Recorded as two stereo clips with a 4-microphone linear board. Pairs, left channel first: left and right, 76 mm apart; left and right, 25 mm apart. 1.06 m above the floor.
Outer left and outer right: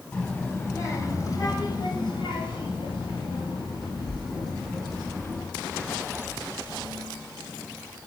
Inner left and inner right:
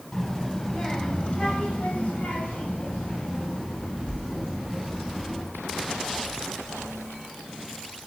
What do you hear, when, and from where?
0.1 s a child speaking: 25° left (ahead or behind), 3.5 m; by 5.4 s 55° left (ahead or behind), 6.5 m